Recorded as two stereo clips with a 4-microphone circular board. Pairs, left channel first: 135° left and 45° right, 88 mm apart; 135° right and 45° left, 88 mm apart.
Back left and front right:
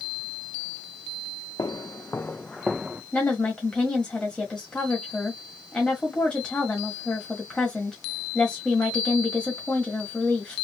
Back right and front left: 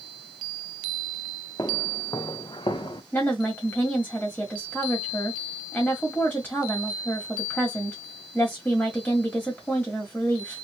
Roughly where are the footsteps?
Behind.